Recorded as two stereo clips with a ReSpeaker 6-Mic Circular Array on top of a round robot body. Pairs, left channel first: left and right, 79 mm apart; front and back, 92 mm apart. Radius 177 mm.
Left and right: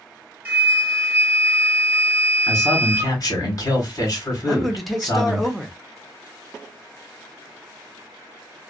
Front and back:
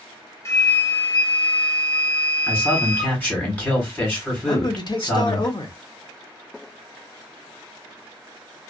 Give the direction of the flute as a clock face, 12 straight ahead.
1 o'clock.